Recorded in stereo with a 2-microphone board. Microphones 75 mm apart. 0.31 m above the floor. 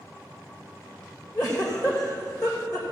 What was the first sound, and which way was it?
A giggle, 55° left (ahead or behind).